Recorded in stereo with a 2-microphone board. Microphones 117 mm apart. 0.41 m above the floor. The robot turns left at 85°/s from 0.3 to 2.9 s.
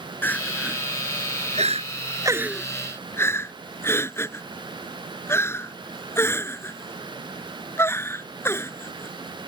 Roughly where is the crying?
Centre.